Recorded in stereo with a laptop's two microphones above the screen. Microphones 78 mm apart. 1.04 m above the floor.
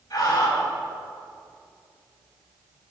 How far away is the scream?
About 6.5 m.